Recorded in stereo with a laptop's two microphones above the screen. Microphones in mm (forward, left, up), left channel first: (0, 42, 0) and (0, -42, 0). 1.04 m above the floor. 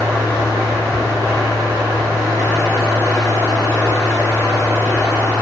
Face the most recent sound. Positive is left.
turn(degrees=-40)  # may be behind; listen again after turning